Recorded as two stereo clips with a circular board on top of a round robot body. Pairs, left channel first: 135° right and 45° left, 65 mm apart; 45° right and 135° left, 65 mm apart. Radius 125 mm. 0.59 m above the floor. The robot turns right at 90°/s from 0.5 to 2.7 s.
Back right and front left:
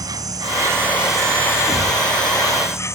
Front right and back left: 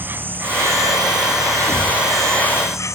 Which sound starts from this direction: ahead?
A thud, at 1.7 s.